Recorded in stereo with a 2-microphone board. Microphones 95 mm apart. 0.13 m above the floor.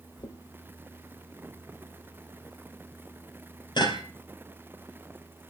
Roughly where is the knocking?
Left.